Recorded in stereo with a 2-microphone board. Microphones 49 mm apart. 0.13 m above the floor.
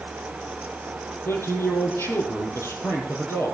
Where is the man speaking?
65° left (ahead or behind), 3.5 m.